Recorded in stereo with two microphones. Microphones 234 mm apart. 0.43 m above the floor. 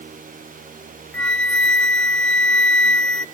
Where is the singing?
I don't hear singing.